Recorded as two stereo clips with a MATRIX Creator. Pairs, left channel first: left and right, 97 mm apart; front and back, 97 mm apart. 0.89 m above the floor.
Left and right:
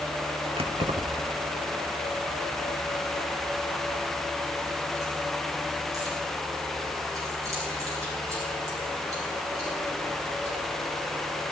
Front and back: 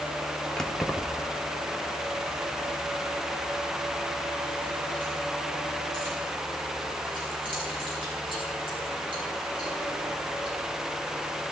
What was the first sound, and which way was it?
Keys jangling, 85° right.